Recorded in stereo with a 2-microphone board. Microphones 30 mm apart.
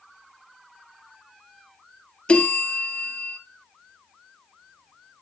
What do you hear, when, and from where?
2.3 s a bell: 35° left (ahead or behind), 1.4 m